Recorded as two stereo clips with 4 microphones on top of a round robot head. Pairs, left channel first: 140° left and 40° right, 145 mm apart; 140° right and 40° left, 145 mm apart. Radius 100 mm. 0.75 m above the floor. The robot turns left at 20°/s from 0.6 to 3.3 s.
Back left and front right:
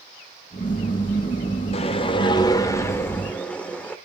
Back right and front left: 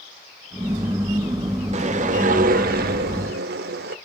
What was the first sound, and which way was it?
A whoosh, 90° left.